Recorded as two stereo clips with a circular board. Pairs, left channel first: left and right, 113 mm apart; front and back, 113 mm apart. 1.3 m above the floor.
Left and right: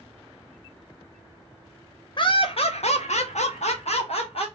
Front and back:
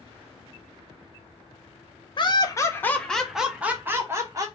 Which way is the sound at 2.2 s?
45° left.